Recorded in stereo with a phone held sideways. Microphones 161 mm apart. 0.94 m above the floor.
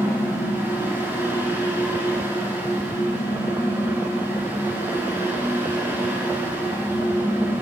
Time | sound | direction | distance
0.0 | a fan | 15° right (ahead or behind) | 2.5 m